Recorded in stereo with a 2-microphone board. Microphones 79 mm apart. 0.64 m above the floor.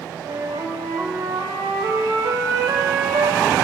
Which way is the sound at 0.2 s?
60° right (ahead or behind).